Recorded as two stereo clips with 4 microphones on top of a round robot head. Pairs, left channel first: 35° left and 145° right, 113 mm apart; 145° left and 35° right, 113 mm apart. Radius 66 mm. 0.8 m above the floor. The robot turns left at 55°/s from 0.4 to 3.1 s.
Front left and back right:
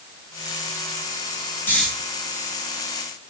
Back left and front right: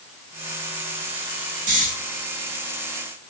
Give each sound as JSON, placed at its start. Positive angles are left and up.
{"t": 1.7, "sound": "snoring", "azimuth_deg": -40, "distance_m": 5.5}